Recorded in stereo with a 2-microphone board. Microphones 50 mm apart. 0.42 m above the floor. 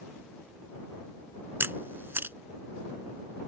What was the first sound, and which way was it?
A camera shutter, 45° right (ahead or behind).